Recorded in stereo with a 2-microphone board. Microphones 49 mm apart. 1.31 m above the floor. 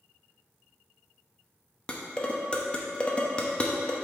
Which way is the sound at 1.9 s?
20° left (ahead or behind).